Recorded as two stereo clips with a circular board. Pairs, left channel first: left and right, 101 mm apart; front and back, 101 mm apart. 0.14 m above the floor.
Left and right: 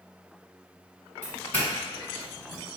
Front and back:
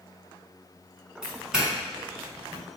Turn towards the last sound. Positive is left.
turn(degrees=110)